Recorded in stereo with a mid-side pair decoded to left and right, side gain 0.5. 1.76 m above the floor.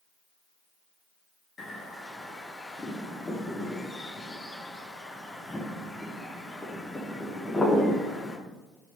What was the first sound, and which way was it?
A bird, 20° left.